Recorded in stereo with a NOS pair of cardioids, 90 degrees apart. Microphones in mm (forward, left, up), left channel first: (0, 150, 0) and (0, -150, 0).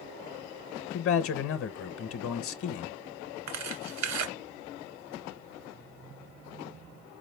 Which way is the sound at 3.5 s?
65° right.